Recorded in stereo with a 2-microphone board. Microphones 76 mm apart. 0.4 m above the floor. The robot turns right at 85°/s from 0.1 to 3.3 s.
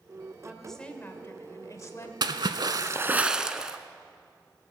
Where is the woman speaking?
15° right, 1.4 m; by 2.1 s 130° left, 1.4 m.